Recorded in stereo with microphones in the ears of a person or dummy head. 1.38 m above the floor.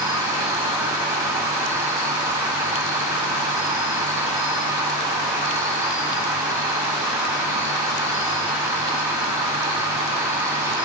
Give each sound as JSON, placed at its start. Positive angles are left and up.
{"t": 0.0, "sound": "an insect", "side_deg": -25, "distance_m": 2.0}